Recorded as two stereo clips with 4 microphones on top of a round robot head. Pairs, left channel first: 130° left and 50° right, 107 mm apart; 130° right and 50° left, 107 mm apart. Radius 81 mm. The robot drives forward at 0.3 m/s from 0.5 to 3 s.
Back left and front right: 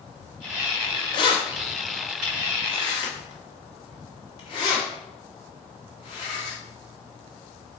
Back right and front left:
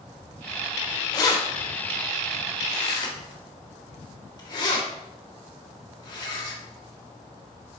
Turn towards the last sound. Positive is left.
turn(degrees=180)